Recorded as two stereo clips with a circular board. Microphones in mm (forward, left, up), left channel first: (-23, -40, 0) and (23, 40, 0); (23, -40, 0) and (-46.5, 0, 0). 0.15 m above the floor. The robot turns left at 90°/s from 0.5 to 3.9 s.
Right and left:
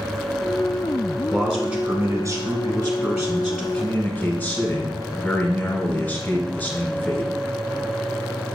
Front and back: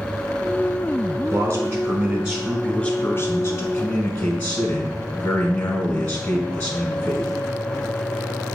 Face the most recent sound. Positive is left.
turn(degrees=-80)